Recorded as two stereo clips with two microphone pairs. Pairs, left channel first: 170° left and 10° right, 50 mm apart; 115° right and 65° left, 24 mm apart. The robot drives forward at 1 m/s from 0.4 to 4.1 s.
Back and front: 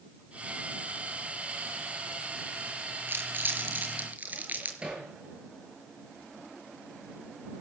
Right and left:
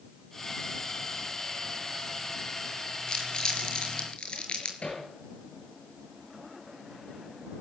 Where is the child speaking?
I don't hear a child speaking.